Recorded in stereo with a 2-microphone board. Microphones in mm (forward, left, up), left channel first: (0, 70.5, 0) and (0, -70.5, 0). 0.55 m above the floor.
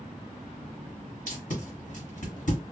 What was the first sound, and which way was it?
Tape being pulled, 65° left (ahead or behind).